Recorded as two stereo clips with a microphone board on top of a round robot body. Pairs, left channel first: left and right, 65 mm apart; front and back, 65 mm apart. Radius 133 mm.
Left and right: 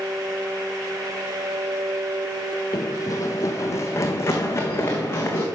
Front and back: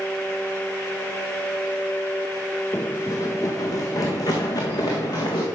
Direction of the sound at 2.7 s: 65° left.